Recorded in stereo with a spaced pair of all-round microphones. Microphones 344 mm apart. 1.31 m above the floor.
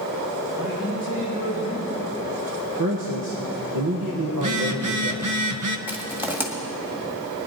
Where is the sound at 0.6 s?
25° right (ahead or behind), 6 m.